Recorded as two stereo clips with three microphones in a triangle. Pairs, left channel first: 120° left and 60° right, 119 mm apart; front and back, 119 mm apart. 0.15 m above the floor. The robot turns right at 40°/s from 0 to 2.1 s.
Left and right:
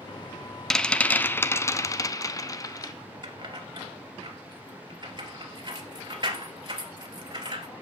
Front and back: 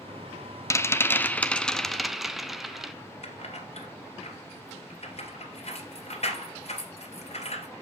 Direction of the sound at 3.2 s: 15° right.